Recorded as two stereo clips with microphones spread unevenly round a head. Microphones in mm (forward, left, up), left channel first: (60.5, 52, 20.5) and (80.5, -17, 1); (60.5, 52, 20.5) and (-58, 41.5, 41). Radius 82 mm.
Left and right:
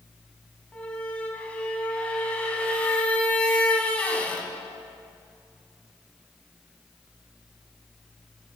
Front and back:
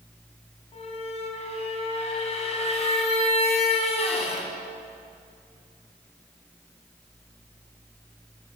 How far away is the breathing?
I don't hear breathing.